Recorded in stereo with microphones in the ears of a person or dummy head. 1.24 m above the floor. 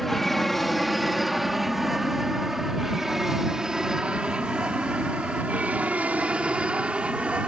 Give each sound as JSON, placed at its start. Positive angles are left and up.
{"t": 0.0, "sound": "an aircraft", "side_deg": 0}